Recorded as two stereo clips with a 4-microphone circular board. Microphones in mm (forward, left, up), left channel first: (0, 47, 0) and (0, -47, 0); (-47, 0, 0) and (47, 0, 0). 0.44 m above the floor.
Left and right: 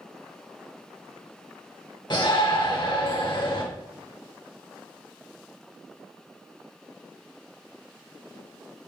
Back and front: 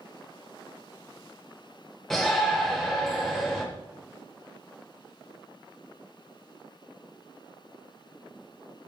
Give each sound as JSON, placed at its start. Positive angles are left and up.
{"t": 2.1, "sound": "a shout", "azimuth_deg": 95, "distance_m": 1.2}